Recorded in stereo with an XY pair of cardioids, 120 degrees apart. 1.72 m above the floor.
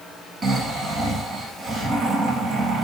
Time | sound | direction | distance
0.4 | snoring | 40° right | 2.5 m